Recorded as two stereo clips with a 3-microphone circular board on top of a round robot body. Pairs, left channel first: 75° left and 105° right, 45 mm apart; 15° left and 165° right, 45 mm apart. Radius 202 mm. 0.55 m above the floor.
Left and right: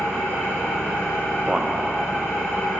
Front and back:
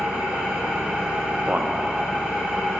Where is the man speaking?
165° right, 1.1 m.